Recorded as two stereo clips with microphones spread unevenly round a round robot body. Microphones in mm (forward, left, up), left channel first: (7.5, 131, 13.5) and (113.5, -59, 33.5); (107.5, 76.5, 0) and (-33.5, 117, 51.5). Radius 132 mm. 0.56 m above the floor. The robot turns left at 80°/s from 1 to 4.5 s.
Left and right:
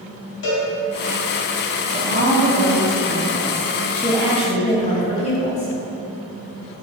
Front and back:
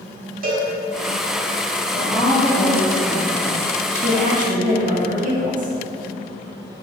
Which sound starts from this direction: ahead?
A woman speaking, at 1.9 s.